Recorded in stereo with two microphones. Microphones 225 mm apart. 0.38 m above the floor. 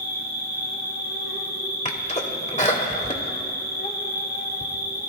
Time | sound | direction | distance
0.0 | an insect | 80° right | 4.5 m
1.9 | a sneeze | 30° left (ahead or behind) | 1.2 m